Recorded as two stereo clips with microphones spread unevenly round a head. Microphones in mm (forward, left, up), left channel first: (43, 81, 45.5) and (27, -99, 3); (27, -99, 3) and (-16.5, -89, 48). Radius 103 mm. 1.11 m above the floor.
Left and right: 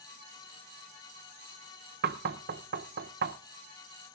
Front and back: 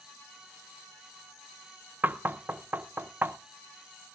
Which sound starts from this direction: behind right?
Knocking, at 2.0 s.